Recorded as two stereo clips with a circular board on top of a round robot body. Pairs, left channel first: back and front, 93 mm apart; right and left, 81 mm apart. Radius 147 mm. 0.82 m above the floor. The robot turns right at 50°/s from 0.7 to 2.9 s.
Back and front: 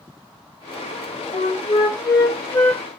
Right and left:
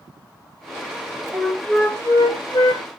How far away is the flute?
About 1.7 m.